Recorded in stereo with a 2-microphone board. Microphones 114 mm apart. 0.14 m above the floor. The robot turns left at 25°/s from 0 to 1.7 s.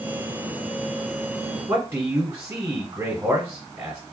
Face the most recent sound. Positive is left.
turn(degrees=-20)  # may be behind; listen again after turning